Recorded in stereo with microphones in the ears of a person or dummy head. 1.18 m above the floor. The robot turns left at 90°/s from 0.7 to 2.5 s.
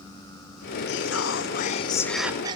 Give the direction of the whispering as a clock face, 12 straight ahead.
8 o'clock.